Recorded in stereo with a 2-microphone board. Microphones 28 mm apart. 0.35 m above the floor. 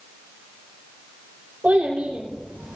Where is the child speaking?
50° right (ahead or behind), 8 m; by 2.8 s 55° right (ahead or behind), 8 m.